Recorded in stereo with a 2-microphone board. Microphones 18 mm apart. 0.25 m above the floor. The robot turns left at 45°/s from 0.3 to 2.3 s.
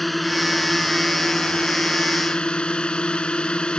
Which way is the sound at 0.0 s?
170° left.